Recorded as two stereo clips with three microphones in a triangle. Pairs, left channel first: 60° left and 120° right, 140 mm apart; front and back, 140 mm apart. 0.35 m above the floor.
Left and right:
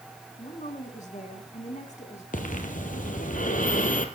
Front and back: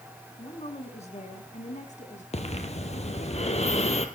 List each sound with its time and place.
0.4 s a woman speaking: 40° left, 3.5 m; by 2.2 s 30° left, 4 m
2.3 s breathing: 40° left, 2.0 m